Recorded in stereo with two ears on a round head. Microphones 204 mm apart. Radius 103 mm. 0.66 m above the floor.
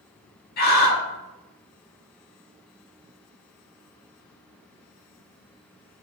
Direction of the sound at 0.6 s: 45° left (ahead or behind).